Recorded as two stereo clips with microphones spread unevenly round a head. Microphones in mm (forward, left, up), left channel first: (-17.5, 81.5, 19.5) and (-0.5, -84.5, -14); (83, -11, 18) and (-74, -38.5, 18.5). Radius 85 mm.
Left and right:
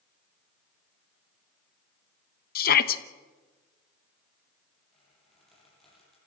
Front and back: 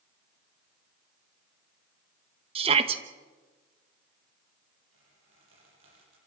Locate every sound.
2.5 s a shout: 130° left, 1.2 m
4.9 s a squeak: 175° right, 10 m